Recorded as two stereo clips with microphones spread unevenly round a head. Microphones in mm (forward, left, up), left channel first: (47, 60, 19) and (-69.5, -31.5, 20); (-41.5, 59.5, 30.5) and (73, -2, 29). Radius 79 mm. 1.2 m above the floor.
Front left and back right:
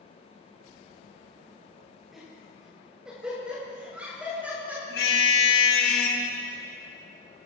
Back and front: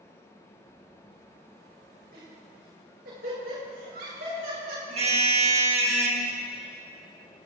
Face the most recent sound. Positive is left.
turn(degrees=10)